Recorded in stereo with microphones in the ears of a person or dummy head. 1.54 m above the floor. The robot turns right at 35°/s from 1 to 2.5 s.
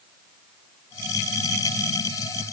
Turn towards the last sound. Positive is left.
No sound to turn to.